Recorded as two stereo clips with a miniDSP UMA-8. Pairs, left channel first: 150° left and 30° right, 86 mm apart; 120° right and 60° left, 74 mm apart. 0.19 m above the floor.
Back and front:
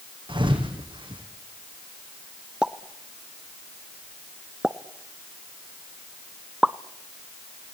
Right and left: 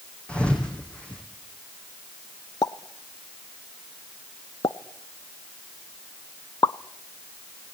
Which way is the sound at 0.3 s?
45° right.